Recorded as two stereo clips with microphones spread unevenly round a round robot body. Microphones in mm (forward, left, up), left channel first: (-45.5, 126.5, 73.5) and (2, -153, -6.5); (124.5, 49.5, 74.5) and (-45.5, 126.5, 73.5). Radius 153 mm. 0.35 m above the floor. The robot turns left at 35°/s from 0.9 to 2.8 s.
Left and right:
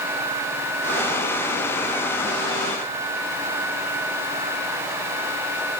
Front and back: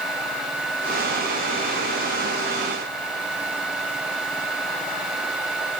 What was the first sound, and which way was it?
Only background noise.